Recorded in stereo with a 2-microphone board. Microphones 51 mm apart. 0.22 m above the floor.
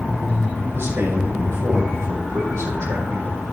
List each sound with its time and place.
0.7 s a man speaking: 55° right (ahead or behind), 7 m; by 3.4 s 75° right (ahead or behind), 7 m